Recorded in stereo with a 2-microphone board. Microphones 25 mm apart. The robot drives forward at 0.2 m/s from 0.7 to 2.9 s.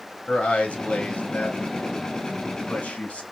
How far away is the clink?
I don't hear a clink.